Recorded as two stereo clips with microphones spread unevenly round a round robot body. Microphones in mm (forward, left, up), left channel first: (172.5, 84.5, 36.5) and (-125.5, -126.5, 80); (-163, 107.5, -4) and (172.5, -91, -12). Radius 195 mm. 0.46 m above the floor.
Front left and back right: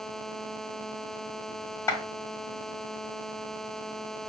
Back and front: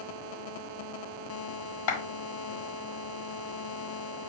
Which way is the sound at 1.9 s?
115° left.